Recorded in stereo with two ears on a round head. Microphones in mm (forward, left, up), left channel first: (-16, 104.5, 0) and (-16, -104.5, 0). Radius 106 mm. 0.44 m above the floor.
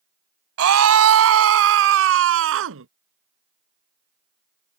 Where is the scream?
70° right (ahead or behind); by 2.9 s 60° right (ahead or behind).